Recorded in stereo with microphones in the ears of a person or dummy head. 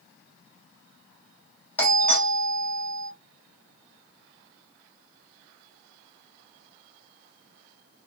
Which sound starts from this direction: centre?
A doorbell, at 1.8 s.